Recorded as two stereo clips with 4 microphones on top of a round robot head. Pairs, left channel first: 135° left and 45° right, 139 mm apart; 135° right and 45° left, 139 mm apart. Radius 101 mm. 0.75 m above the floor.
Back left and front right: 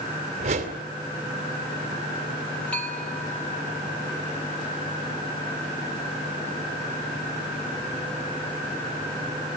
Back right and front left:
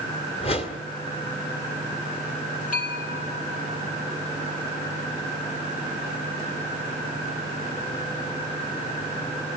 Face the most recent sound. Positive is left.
turn(degrees=-145)